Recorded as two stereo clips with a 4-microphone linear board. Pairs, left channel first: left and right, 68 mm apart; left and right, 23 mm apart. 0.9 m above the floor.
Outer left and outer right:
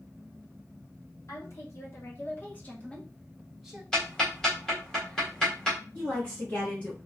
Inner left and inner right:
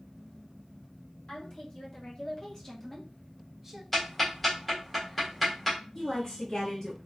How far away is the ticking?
About 1.9 m.